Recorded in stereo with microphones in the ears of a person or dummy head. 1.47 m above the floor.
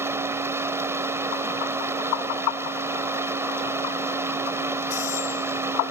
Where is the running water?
15° right (ahead or behind).